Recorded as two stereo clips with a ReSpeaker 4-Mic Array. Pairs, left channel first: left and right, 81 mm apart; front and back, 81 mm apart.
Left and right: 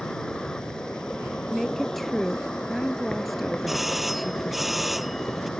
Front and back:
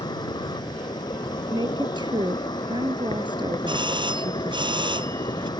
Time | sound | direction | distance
0.0 | an insect | 10° left | ?
1.5 | a woman speaking | straight behind | ?
3.7 | a doorbell | straight behind | ?